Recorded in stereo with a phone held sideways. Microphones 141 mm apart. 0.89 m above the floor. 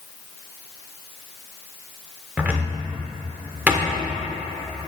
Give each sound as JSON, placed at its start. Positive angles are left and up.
{"t": 2.4, "sound": "a cupboard door", "side_deg": -10, "distance_m": 0.9}